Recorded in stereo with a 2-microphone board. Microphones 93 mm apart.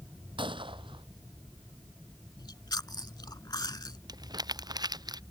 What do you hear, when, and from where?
0.4 s a gunshot: 70° right (ahead or behind)
2.4 s chewing: 50° left (ahead or behind)
4.1 s crumpling: 50° right (ahead or behind)